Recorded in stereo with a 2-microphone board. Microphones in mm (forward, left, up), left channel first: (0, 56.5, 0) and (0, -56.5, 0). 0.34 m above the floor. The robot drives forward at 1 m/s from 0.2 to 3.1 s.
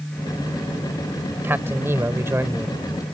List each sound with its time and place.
1.4 s a man speaking: 20° right (ahead or behind)